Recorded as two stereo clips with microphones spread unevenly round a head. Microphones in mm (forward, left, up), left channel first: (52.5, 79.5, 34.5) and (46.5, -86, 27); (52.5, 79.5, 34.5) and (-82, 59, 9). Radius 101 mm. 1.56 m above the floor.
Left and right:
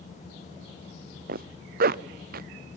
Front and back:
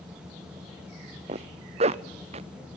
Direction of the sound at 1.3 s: 130° right.